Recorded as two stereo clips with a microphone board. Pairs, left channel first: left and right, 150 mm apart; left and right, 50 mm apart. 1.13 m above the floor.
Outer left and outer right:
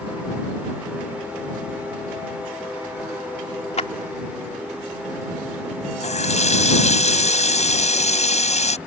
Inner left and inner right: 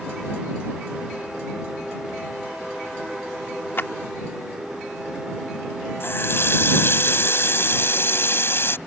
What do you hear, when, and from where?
3.8 s a clap: 45° left (ahead or behind)
6.0 s a running tap: 50° left (ahead or behind)